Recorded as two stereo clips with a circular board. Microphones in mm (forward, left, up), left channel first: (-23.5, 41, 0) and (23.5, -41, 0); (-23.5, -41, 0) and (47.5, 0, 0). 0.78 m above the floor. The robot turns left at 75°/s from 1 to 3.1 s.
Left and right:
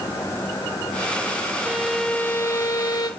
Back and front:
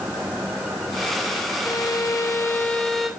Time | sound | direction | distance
1.6 | a violin | 130° right | 0.8 m